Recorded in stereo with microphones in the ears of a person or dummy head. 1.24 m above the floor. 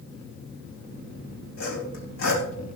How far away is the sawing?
About 4.5 m.